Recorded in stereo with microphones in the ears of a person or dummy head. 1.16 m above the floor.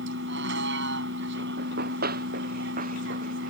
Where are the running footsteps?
55° right (ahead or behind); by 3.5 s 45° right (ahead or behind).